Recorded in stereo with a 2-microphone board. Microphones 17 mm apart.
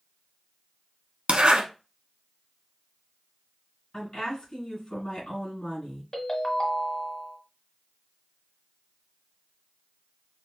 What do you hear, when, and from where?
1.3 s a zipper: 80° right, 0.8 m
3.9 s a woman speaking: 60° left (ahead or behind), 2.5 m
6.1 s a ringtone: 40° left (ahead or behind), 1.1 m